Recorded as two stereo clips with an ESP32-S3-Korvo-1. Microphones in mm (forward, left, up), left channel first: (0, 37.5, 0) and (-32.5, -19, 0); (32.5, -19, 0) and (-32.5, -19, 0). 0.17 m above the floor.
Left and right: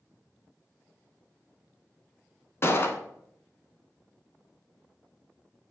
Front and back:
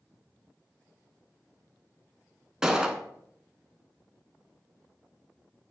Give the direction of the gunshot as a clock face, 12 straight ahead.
9 o'clock.